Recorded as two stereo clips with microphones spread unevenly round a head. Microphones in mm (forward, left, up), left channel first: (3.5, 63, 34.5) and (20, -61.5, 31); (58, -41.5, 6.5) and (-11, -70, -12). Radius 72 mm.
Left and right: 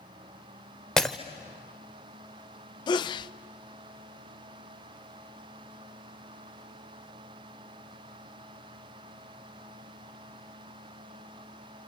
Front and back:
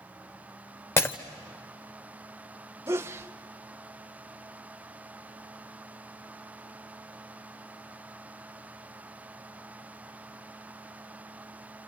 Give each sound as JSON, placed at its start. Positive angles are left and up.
{"t": 1.0, "sound": "breaking glass", "azimuth_deg": 15, "distance_m": 1.1}
{"t": 2.9, "sound": "a sneeze", "azimuth_deg": 150, "distance_m": 0.5}